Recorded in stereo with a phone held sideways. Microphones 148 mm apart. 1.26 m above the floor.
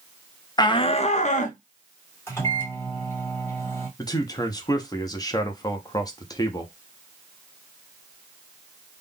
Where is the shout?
30° left (ahead or behind), 0.6 m; by 1.6 s 60° left (ahead or behind), 1.0 m.